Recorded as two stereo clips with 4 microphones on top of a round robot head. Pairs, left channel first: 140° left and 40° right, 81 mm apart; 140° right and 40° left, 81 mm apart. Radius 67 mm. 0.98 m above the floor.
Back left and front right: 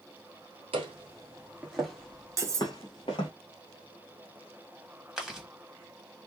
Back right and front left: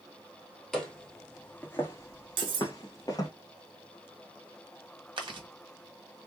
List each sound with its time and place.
0.7 s footsteps: 50° right, 1.2 m; by 3.3 s 170° left, 1.3 m
2.4 s cutlery clinking: 15° left, 1.0 m
5.2 s chewing: 45° left, 1.6 m